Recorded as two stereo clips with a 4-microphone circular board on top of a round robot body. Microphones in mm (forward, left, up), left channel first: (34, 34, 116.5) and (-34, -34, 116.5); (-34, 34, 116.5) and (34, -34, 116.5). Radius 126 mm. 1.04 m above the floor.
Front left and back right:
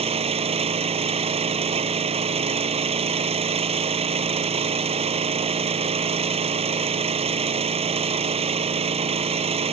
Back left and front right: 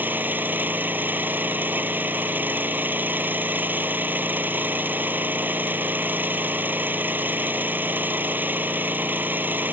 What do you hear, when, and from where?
0.0 s an engine running: 120° right